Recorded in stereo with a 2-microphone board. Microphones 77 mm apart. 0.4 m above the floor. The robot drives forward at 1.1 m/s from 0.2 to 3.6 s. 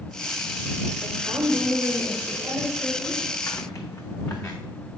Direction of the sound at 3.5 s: 45° left (ahead or behind).